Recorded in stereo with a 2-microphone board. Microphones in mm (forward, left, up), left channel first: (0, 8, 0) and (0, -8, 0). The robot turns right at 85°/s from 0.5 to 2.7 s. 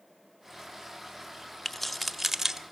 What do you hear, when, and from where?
1.6 s keys jangling: 20° left (ahead or behind), 0.6 m; by 2.6 s 30° right (ahead or behind), 0.6 m